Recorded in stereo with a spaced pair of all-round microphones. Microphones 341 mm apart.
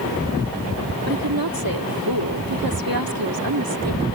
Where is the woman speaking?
85° right.